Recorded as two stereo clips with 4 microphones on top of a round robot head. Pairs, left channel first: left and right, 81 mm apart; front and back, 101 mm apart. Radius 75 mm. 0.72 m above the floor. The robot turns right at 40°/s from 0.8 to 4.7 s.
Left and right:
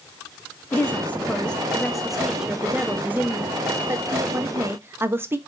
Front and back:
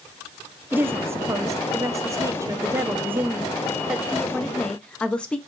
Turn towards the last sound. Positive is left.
turn(degrees=-70)